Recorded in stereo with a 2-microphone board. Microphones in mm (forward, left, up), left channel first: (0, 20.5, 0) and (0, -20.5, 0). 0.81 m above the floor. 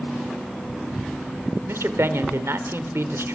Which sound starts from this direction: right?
A man speaking, at 1.7 s.